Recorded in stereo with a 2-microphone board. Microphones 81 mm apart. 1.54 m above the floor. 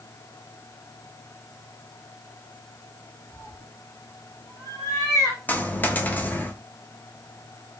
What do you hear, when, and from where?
3.3 s a cat meowing: 45° left (ahead or behind), 3 m; by 5.4 s 40° left (ahead or behind), 1.6 m
5.5 s a dropped coin: 20° left (ahead or behind), 0.8 m